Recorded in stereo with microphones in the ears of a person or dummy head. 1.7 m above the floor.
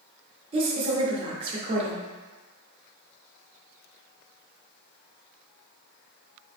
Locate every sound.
0.5 s a woman speaking: 30° right (ahead or behind), 0.8 m